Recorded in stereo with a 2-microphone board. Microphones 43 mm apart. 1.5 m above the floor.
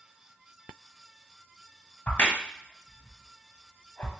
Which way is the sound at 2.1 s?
40° left (ahead or behind).